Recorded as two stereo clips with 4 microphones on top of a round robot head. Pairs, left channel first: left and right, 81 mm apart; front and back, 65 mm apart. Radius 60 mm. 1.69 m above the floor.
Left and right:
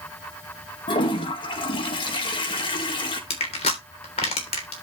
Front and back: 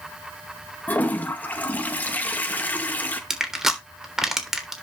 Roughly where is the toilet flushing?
Ahead left.